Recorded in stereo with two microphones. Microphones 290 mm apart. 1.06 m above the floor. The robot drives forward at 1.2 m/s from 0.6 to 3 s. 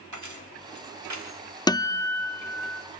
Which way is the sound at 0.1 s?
85° right.